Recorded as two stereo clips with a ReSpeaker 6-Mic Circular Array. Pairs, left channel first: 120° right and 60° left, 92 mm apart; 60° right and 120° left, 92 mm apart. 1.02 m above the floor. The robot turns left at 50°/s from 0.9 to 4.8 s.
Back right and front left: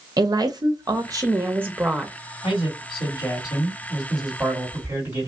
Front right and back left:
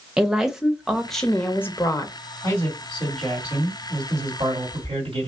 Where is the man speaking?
115° right, 2.5 m; by 5.3 s 125° left, 2.5 m.